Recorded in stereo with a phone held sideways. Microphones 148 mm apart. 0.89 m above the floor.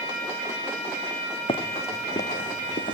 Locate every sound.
1.5 s running footsteps: 35° left (ahead or behind), 2 m; by 3.0 s 65° left (ahead or behind), 2.5 m